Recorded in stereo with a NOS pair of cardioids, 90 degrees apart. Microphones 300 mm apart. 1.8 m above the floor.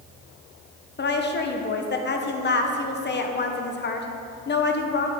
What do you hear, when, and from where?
1.0 s a woman speaking: 35° left, 1.3 m